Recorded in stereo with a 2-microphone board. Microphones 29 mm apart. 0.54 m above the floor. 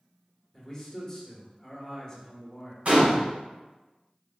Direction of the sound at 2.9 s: 60° right (ahead or behind).